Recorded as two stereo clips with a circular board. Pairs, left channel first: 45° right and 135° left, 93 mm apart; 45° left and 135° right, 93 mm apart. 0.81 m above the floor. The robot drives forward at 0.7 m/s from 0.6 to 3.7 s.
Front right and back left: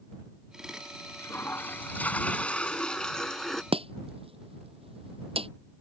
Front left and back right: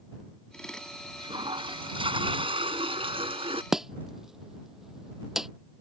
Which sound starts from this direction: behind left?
Chopping, at 3.7 s.